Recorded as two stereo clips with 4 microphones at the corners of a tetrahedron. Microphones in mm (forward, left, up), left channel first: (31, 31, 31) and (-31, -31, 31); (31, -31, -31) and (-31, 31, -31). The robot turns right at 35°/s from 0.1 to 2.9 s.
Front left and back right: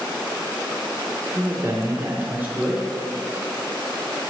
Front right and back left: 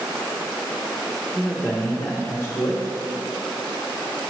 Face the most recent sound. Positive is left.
turn(degrees=-60)